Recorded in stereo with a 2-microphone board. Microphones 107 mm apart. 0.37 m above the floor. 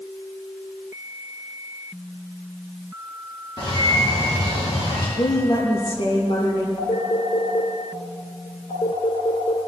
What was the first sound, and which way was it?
A bird, 45° left (ahead or behind).